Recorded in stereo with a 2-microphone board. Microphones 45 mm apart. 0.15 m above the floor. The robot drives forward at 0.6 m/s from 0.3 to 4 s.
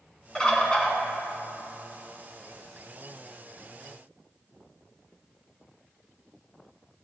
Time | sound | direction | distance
0.3 | a bird | 15° left (ahead or behind) | 1.7 m